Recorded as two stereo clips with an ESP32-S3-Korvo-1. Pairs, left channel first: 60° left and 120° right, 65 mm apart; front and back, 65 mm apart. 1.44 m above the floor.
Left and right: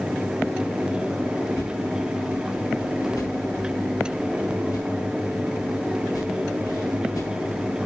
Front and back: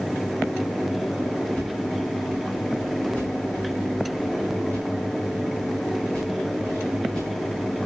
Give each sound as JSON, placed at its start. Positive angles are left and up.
{"t": 1.6, "sound": "a whoosh", "azimuth_deg": 75, "distance_m": 6.0}